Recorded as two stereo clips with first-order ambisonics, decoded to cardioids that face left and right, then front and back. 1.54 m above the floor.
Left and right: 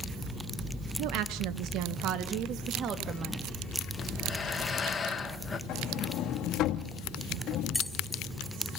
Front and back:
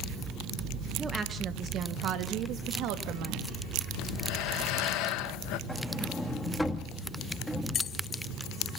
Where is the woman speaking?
105° right, 1.1 m; by 3.5 s 145° right, 2.5 m.